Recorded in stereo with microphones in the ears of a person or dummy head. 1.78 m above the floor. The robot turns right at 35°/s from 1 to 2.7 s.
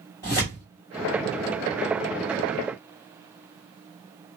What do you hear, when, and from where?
0.2 s tearing paper: 20° left (ahead or behind), 1.6 m